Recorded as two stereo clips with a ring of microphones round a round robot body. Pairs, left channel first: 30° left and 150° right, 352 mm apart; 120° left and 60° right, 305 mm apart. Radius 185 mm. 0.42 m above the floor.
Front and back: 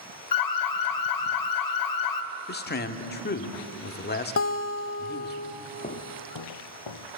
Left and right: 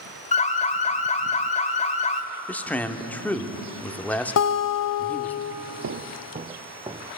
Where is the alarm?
55° left, 1.4 m.